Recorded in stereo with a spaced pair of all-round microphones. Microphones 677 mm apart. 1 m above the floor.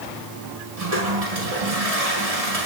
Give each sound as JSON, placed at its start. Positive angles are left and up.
{"t": 0.8, "sound": "a toilet flushing", "side_deg": -60, "distance_m": 7.0}